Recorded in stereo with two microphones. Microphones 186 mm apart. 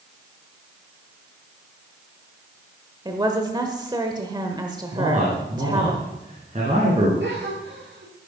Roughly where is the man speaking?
Right.